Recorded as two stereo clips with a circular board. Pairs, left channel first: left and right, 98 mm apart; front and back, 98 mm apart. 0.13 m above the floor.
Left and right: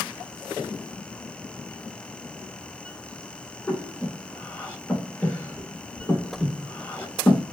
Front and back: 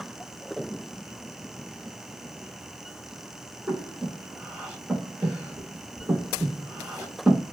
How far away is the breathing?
About 0.8 m.